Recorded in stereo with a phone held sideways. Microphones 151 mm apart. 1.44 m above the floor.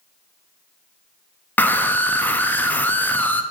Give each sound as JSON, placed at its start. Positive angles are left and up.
{"t": 1.6, "sound": "a scream", "side_deg": 15, "distance_m": 0.5}